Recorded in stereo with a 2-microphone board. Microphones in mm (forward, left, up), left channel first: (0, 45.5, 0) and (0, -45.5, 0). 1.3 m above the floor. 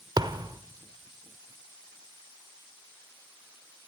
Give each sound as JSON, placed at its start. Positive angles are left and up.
{"t": 0.2, "sound": "a thud", "side_deg": -45, "distance_m": 1.3}